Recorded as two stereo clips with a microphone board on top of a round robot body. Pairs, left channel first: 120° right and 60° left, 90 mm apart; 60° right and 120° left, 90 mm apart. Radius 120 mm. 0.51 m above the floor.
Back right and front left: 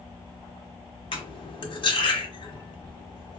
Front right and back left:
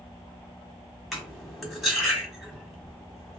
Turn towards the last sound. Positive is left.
turn(degrees=-150)